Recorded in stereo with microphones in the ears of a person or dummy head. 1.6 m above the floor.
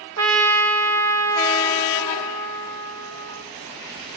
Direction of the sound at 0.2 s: 70° right (ahead or behind).